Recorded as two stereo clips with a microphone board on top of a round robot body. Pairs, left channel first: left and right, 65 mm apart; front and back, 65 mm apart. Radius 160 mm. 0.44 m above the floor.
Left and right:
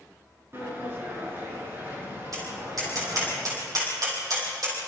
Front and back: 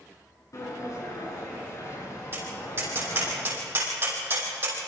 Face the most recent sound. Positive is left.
turn(degrees=-125)